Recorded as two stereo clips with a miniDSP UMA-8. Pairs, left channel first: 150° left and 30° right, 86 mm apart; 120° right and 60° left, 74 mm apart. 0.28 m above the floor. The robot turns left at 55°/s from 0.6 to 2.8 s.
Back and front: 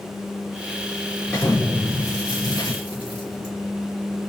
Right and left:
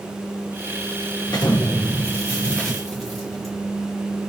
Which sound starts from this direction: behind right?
An explosion, at 1.3 s.